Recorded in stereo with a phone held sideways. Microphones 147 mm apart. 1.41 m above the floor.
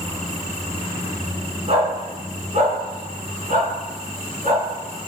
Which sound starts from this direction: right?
A dog barking, at 1.7 s.